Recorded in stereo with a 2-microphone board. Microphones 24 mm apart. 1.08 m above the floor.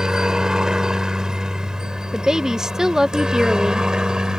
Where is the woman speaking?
25° right (ahead or behind).